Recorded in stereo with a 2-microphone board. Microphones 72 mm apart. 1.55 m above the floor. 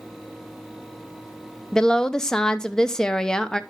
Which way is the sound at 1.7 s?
10° left (ahead or behind).